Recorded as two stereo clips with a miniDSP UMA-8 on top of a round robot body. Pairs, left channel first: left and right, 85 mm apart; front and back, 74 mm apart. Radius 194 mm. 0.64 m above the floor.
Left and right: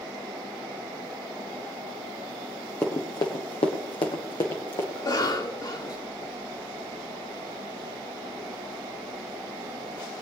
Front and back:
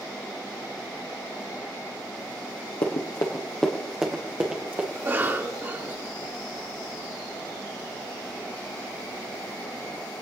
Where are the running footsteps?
20° left, 1.3 m; by 4.8 s 120° left, 2.5 m.